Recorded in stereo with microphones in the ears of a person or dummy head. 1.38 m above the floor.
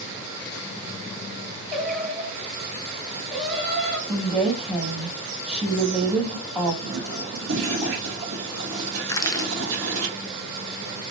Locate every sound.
1.7 s singing: 5° left (ahead or behind), 1.1 m
4.1 s a woman speaking: 5° left (ahead or behind), 1.4 m
6.8 s a toilet flushing: 70° right (ahead or behind), 1.3 m
9.1 s crushing: 20° left (ahead or behind), 0.5 m